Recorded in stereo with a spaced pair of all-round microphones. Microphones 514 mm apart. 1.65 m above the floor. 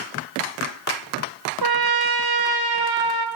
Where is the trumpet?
45° right (ahead or behind), 0.7 m.